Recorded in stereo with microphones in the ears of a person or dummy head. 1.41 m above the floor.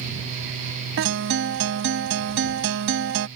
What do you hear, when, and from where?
1.0 s a guitar: 65° right (ahead or behind)